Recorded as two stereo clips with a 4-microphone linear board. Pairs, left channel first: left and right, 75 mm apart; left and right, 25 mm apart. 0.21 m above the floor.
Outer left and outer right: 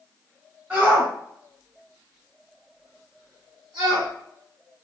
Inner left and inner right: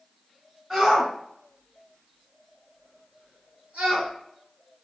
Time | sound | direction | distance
0.7 | a shout | 20° right (ahead or behind) | 1.7 m